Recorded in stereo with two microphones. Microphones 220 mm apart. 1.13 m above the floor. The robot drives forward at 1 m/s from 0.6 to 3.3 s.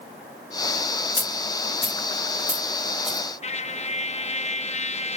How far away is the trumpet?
About 1.0 m.